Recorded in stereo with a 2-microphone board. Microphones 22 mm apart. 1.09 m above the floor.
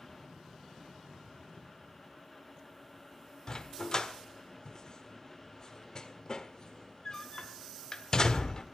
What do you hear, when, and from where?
3.5 s a dog barking: 30° left (ahead or behind), 1.5 m